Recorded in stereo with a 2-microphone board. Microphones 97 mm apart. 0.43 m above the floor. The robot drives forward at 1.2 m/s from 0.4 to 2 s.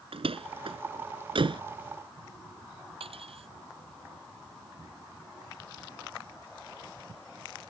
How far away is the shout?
I don't hear a shout.